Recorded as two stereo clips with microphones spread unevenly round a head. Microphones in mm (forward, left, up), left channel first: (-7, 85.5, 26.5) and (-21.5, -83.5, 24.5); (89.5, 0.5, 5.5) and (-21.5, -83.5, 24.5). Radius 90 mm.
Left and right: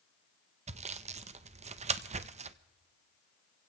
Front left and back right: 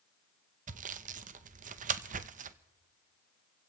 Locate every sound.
0.7 s sawing: 135° right, 0.6 m